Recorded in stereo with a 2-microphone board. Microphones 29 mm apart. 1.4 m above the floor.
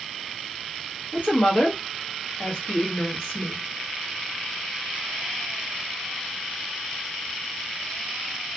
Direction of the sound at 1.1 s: 50° left (ahead or behind).